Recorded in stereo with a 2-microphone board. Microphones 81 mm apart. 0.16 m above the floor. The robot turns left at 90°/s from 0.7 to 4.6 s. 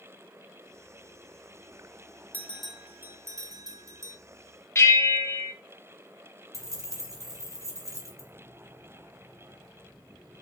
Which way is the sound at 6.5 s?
45° right (ahead or behind).